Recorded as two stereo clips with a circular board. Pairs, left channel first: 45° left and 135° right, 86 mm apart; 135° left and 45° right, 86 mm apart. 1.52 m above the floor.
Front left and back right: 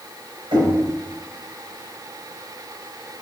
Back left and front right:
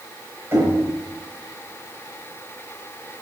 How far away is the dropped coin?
I don't hear a dropped coin.